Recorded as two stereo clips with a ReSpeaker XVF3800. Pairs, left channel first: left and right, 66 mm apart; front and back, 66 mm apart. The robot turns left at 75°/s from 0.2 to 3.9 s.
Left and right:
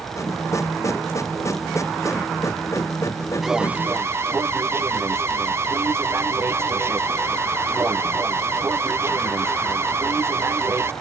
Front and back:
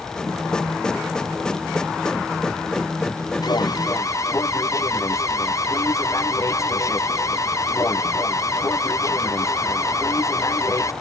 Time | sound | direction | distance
3.4 | an alarm | straight ahead | ?